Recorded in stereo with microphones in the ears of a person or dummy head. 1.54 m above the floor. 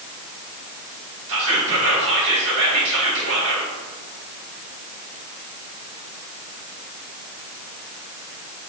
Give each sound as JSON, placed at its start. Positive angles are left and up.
{"t": 1.3, "sound": "whispering", "side_deg": -80, "distance_m": 3.0}